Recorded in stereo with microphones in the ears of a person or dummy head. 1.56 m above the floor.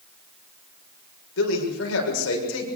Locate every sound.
1.4 s a man speaking: 80° left, 6.5 m